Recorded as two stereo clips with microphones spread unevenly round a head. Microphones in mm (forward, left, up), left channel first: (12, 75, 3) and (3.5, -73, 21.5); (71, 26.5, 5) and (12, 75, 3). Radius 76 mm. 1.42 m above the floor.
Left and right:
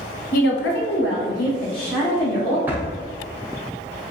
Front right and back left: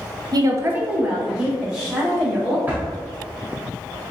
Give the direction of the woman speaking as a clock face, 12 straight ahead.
8 o'clock.